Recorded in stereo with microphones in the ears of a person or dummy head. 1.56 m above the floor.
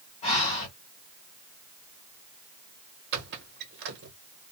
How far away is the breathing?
About 1.2 m.